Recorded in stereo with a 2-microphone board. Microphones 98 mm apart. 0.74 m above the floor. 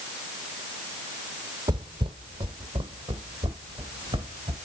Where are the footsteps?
50° right (ahead or behind), 1.1 m; by 4.5 s 55° right (ahead or behind), 3.5 m.